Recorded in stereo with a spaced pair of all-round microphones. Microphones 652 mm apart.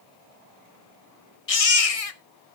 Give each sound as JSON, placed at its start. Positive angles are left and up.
{"t": 1.5, "sound": "a baby crying", "side_deg": 60, "distance_m": 0.9}